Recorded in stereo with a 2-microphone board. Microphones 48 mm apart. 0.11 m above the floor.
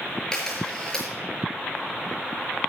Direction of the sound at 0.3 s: 15° left (ahead or behind).